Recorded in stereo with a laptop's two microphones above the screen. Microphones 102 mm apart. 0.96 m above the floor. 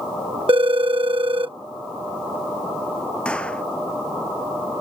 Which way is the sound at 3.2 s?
10° left (ahead or behind).